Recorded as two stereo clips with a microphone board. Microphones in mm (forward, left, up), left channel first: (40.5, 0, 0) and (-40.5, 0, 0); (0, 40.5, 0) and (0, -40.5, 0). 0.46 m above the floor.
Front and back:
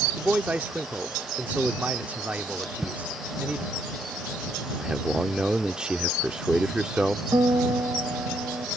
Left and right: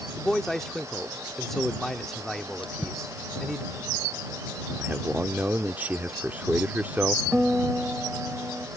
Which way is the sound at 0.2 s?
165° left.